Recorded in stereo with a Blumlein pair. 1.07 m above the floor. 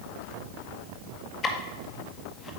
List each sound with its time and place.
1.4 s ticking: 20° left, 1.7 m